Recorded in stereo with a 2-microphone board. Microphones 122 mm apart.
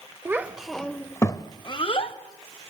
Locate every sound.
0.2 s a child speaking: 20° right (ahead or behind), 1.0 m; by 2.1 s 50° left (ahead or behind), 1.5 m